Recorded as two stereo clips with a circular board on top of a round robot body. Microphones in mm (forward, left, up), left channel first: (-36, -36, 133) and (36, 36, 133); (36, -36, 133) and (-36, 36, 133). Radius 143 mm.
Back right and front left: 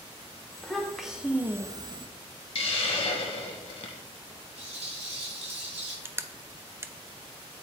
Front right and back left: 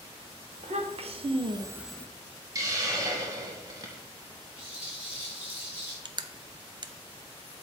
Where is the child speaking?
140° left, 1.4 m; by 2.1 s 25° left, 0.6 m.